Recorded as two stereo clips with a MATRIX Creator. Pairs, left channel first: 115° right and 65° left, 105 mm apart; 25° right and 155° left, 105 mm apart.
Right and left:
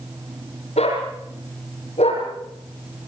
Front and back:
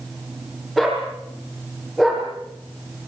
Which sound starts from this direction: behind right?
A dog barking, at 0.8 s.